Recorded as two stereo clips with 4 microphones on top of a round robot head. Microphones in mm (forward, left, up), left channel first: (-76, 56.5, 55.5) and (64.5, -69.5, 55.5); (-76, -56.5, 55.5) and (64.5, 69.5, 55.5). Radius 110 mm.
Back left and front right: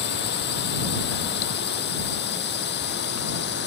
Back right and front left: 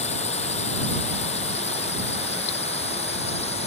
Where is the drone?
165° left.